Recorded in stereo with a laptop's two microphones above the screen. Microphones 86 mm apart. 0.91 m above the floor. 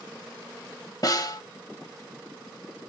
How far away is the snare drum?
About 1.0 m.